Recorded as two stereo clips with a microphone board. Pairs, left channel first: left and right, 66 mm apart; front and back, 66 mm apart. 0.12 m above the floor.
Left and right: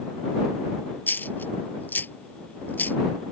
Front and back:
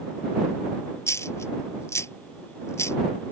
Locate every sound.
1.1 s a dropped coin: 35° left